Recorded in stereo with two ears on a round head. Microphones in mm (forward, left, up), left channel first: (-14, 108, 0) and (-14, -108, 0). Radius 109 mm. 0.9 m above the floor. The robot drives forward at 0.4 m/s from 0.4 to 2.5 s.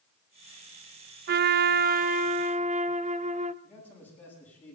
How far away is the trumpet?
About 0.5 m.